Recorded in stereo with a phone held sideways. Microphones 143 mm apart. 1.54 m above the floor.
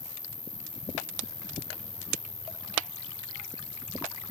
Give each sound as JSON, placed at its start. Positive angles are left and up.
{"t": 0.0, "sound": "an insect", "side_deg": 55}